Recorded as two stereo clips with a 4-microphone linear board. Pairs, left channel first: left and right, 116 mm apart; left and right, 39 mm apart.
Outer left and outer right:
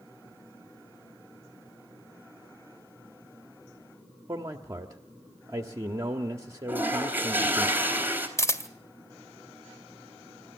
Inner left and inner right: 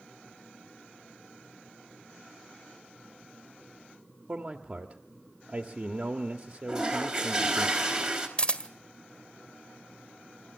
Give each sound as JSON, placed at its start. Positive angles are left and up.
{"t": 4.3, "sound": "a man speaking", "side_deg": -30, "distance_m": 1.2}
{"t": 6.7, "sound": "a toilet flushing", "side_deg": -15, "distance_m": 4.0}
{"t": 8.4, "sound": "a camera shutter", "side_deg": 25, "distance_m": 1.7}